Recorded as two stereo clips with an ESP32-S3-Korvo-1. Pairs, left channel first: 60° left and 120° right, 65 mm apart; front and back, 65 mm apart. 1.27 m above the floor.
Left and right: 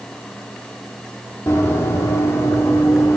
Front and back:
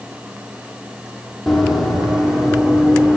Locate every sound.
1.5 s running footsteps: 90° left, 1.7 m; by 3.2 s 105° left, 2.5 m